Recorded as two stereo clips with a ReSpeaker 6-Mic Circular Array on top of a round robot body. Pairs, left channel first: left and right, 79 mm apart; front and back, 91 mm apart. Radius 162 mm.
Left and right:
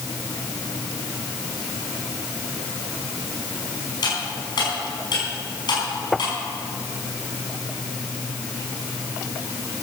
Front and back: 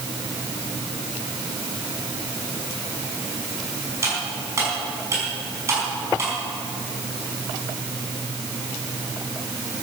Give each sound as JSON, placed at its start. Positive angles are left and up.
{"t": 4.0, "sound": "cutlery clinking", "azimuth_deg": 120, "distance_m": 6.0}